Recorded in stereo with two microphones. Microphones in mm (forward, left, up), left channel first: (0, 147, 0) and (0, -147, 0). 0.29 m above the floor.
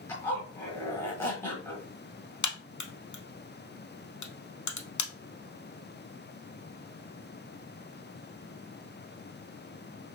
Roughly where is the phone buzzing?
I don't hear a phone buzzing.